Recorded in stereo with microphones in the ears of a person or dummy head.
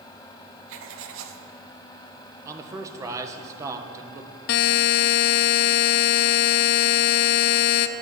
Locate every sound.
0.7 s writing: 75° right (ahead or behind), 1.2 m
2.5 s a man speaking: 20° right (ahead or behind), 1.2 m
4.5 s a buzzer: 60° left (ahead or behind), 0.5 m